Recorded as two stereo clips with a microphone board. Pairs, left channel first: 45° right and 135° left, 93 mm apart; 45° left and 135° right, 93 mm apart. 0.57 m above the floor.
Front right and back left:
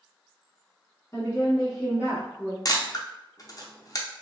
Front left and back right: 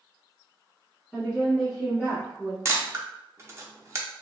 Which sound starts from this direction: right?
A camera shutter, at 2.6 s.